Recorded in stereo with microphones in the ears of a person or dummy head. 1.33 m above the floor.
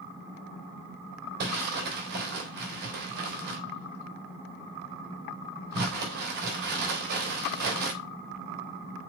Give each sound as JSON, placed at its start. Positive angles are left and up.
{"t": 1.4, "sound": "crumpling", "side_deg": -55, "distance_m": 3.5}